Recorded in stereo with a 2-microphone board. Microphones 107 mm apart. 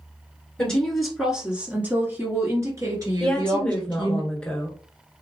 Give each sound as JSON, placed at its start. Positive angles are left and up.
{"t": 0.6, "sound": "a woman speaking", "side_deg": 5, "distance_m": 1.3}
{"t": 3.2, "sound": "a woman speaking", "side_deg": 10, "distance_m": 1.2}